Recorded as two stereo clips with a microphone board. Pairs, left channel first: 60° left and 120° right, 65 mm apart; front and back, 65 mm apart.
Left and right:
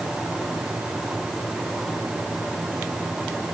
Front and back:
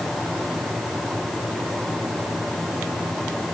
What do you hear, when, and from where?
Only background noise.